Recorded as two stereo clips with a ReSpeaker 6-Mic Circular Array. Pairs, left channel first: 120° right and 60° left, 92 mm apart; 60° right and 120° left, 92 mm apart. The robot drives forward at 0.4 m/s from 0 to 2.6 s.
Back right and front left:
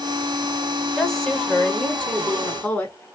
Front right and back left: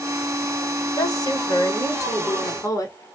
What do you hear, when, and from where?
1.0 s a woman speaking: 30° right, 1.5 m; by 3.0 s 60° right, 1.2 m